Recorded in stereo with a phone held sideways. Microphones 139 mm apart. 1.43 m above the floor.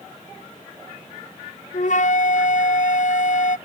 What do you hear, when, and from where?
1.7 s a flute: 65° left (ahead or behind)